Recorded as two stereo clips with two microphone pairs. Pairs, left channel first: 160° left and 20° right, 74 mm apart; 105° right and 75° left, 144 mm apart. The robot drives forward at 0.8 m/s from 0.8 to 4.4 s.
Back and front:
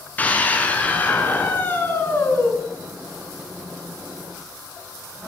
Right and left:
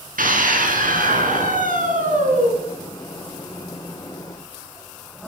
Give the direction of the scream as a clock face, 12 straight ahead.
9 o'clock.